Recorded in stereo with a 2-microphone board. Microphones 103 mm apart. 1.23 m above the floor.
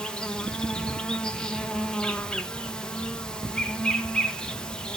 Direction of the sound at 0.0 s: 10° left (ahead or behind).